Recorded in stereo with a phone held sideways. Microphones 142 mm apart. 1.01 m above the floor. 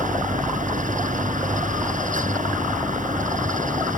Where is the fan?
70° right (ahead or behind).